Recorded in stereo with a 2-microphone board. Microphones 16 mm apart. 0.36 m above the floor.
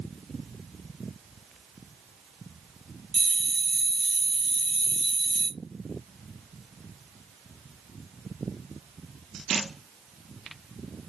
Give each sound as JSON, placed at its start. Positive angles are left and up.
{"t": 3.1, "sound": "a bell", "side_deg": 20, "distance_m": 1.5}